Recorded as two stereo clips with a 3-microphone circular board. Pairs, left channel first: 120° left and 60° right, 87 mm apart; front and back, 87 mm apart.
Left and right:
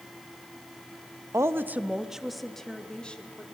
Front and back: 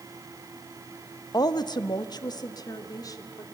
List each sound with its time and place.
1.3 s a woman speaking: 15° right, 0.9 m; by 3.4 s 45° left, 2.5 m